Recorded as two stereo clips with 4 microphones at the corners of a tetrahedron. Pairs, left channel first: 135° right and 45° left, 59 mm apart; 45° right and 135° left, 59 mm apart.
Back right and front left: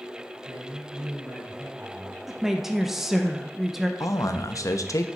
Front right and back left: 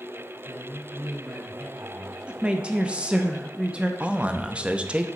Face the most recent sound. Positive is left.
turn(degrees=-155)